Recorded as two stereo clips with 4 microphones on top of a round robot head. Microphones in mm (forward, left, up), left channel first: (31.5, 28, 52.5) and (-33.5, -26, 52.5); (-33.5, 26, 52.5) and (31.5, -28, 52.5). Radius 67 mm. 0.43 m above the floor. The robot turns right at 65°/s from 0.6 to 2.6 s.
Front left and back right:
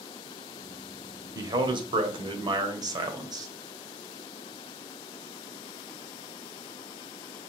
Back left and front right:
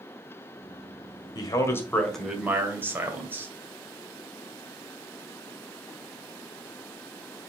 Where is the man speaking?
175° left, 1.8 m; by 3.5 s 105° right, 1.8 m.